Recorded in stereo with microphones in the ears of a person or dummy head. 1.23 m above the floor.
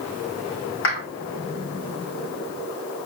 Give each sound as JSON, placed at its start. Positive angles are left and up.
{"t": 0.8, "sound": "a clap", "side_deg": 60, "distance_m": 4.5}